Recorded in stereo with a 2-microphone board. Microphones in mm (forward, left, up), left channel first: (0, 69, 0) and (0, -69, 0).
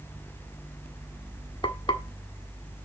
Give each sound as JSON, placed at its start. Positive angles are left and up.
{"t": 1.6, "sound": "frying", "side_deg": 35, "distance_m": 1.4}